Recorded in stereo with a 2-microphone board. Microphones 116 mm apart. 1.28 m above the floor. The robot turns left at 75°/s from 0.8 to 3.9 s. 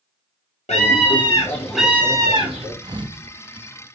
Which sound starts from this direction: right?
A thud, at 2.8 s.